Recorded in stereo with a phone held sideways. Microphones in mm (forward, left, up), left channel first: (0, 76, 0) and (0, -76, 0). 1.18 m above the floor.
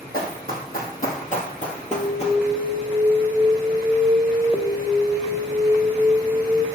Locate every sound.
0.1 s running footsteps: 65° left (ahead or behind), 3 m; by 2.4 s 40° left (ahead or behind), 1.4 m
1.9 s an alarm: 10° right (ahead or behind), 0.8 m